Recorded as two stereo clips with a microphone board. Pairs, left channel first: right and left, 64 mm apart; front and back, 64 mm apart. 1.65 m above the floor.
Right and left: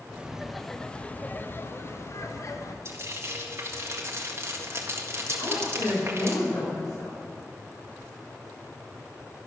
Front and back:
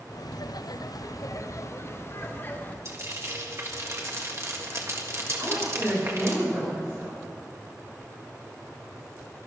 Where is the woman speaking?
105° right, 6.5 m.